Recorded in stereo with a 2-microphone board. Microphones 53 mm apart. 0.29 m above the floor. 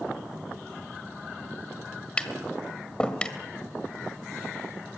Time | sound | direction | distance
2.2 | tapping | 20° left (ahead or behind) | 1.7 m